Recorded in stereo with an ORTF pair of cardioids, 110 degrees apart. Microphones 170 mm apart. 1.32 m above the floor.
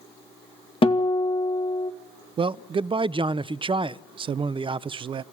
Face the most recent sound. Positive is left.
turn(degrees=-30)